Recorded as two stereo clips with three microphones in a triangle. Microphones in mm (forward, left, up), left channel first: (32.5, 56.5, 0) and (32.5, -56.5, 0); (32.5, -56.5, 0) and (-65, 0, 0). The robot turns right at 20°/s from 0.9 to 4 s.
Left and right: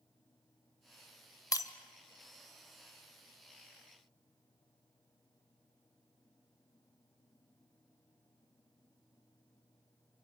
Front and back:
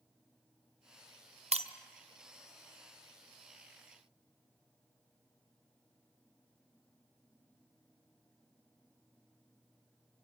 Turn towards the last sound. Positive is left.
turn(degrees=-170)